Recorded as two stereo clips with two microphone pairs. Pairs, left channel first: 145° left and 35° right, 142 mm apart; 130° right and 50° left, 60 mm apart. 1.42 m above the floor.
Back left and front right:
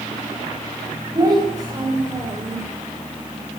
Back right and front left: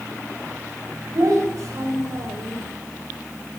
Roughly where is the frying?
No frying in this recording.